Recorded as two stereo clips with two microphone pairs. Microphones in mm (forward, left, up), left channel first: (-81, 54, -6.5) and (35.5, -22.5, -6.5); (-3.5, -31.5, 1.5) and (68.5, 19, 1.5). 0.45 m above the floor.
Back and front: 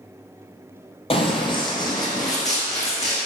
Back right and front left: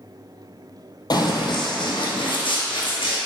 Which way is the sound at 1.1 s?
175° right.